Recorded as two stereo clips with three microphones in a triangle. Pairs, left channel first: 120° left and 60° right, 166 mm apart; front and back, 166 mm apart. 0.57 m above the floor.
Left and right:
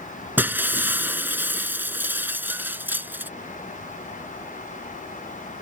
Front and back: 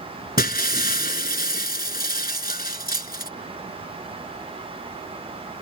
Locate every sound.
0.4 s breaking glass: 20° left